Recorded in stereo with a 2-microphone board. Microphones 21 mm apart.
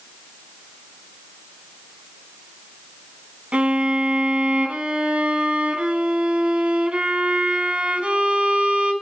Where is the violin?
65° right (ahead or behind), 3.5 m.